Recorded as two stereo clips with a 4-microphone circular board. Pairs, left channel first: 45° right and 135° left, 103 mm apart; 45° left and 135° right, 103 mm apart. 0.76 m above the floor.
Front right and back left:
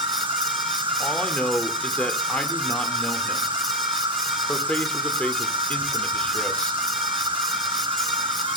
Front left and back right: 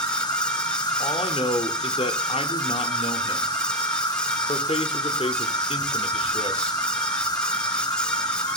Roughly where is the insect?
Left.